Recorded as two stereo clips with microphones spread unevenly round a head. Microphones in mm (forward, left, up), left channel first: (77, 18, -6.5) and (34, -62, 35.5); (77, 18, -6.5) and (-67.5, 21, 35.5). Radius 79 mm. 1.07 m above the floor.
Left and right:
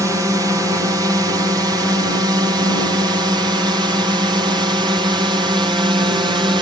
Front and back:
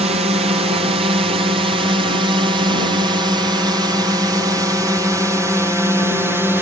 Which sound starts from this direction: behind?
A drone, at 0.0 s.